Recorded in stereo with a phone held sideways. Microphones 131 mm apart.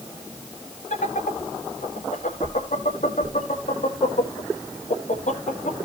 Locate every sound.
0.9 s laughter: 80° left, 2 m